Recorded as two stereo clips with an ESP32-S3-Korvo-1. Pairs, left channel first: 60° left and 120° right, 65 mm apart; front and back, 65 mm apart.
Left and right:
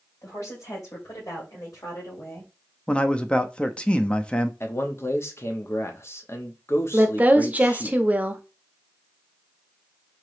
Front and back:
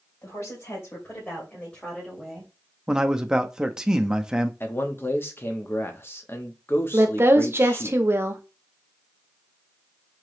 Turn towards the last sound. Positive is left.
turn(degrees=-170)